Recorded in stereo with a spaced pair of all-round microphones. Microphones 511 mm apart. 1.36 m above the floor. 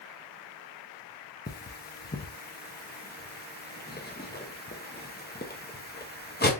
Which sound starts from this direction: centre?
Cutlery clinking, at 1.5 s.